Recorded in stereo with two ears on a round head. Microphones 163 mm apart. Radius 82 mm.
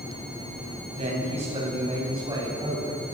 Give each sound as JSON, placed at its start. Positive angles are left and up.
{"t": 0.9, "sound": "a man speaking", "side_deg": -40, "distance_m": 9.0}